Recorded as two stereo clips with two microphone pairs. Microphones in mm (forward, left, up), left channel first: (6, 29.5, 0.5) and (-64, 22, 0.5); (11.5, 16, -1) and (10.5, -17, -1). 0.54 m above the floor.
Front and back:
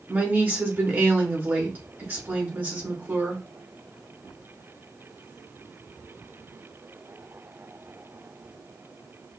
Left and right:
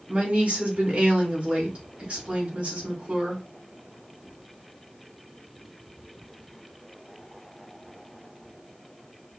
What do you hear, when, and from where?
0.1 s a woman speaking: 120° right, 2 m